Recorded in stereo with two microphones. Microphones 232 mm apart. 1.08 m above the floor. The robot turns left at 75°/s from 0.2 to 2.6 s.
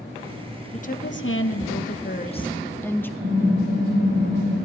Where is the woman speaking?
150° left, 1.1 m; by 3.1 s 10° left, 1.1 m.